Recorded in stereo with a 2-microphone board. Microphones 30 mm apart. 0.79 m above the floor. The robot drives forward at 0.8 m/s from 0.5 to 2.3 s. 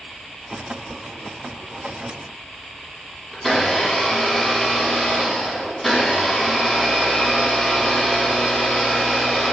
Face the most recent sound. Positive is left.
turn(degrees=10)  # may be behind; listen again after turning